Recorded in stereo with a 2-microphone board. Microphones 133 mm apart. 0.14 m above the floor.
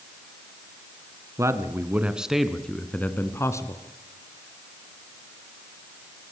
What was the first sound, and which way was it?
A man speaking, 25° right (ahead or behind).